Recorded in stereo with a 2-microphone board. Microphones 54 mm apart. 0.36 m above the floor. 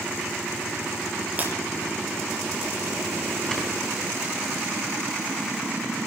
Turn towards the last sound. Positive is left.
turn(degrees=15)  # may be behind; listen again after turning